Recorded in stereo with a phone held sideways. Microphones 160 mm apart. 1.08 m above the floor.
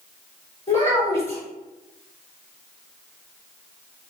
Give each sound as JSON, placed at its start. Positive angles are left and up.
{"t": 0.7, "sound": "a child speaking", "side_deg": 40, "distance_m": 1.1}